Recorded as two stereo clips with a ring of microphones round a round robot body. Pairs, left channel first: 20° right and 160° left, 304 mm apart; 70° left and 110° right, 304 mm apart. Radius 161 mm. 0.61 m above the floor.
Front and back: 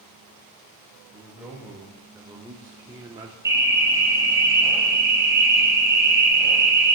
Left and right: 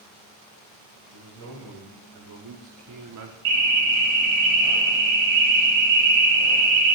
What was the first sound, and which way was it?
A man speaking, 120° right.